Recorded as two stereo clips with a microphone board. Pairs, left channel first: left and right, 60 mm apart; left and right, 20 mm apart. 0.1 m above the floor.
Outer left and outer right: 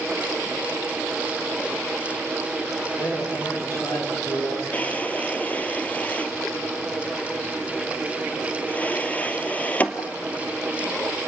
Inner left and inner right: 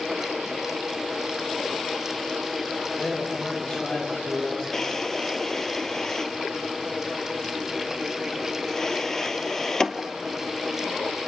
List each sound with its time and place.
3.0 s a man speaking: 75° left (ahead or behind), 8.5 m
4.7 s a drawer: 25° left (ahead or behind), 1.3 m